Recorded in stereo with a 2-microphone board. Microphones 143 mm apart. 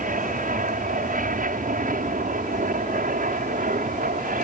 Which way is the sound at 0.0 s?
70° right (ahead or behind).